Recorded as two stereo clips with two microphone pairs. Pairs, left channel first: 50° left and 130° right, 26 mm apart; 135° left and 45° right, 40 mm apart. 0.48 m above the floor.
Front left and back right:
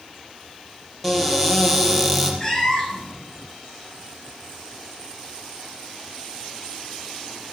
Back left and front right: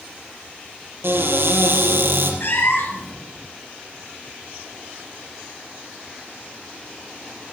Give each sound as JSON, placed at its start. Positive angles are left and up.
{"t": 1.0, "sound": "a cupboard door", "azimuth_deg": -30, "distance_m": 6.0}
{"t": 2.4, "sound": "a cat meowing", "azimuth_deg": 120, "distance_m": 4.0}